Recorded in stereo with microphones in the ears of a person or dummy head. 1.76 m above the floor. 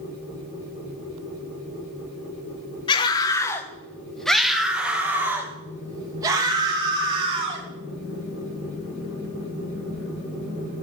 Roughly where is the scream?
Left.